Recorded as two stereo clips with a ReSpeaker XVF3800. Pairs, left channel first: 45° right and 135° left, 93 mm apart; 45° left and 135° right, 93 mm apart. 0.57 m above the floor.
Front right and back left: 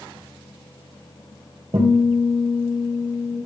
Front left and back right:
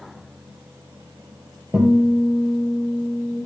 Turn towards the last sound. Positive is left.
turn(degrees=160)